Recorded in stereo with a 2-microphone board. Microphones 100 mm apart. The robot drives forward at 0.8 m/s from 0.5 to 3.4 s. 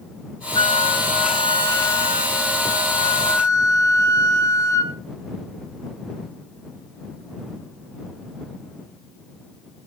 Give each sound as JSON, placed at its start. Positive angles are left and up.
{"t": 0.6, "sound": "a flute", "side_deg": 60, "distance_m": 1.7}